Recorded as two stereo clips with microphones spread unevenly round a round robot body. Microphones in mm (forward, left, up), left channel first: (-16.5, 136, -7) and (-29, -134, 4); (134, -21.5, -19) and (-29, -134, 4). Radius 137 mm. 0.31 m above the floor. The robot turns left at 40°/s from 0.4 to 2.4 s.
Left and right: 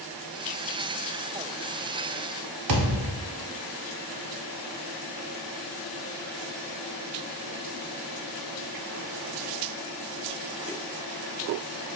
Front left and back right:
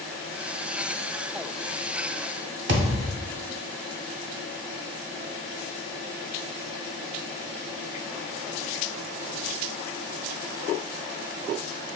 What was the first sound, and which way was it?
A thud, 110° right.